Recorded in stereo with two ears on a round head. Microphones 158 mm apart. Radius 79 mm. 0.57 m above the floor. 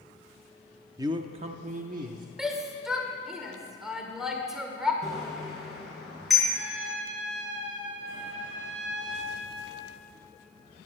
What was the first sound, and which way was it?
A man speaking, 20° right (ahead or behind).